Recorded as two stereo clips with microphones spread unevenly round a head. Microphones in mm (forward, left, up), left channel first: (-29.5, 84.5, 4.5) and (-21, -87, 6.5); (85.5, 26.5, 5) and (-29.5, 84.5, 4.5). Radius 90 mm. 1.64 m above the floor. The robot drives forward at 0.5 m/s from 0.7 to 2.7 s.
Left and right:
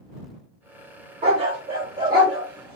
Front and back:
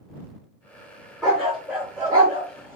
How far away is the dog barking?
About 1.6 m.